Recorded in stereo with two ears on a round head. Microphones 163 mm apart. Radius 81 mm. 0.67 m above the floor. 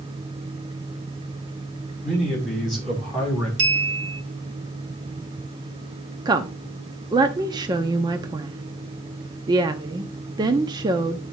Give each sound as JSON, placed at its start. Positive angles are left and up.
{"t": 2.0, "sound": "a man speaking", "side_deg": -5, "distance_m": 6.0}
{"t": 3.6, "sound": "a clink", "side_deg": -65, "distance_m": 2.0}
{"t": 6.2, "sound": "a woman speaking", "side_deg": -25, "distance_m": 0.6}